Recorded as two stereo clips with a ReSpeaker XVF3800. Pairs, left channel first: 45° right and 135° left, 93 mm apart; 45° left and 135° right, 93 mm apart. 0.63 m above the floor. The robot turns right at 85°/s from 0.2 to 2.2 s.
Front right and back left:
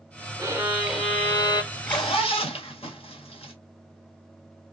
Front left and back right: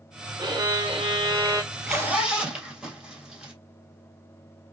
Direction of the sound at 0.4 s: Straight behind.